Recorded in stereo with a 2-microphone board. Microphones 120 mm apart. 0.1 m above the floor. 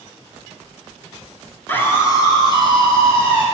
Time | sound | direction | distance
1.7 | a scream | 15° left (ahead or behind) | 1.2 m